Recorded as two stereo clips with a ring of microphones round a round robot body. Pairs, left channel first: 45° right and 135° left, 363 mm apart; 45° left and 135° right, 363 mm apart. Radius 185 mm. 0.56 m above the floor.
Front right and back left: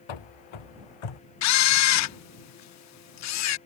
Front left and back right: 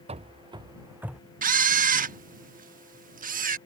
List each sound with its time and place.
0.1 s running footsteps: 60° right; by 1.2 s 45° right
1.4 s a camera shutter: 75° right